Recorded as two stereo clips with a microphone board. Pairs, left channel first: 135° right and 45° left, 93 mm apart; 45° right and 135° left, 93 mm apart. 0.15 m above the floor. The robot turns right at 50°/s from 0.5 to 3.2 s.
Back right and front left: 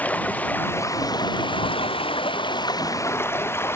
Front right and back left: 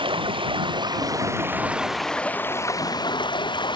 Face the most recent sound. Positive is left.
turn(degrees=-75)